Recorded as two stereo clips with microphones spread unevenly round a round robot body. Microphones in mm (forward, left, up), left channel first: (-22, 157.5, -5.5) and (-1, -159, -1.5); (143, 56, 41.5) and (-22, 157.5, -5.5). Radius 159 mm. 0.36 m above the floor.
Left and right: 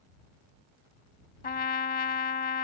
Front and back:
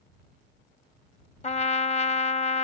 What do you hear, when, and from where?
1.4 s a trumpet: 30° left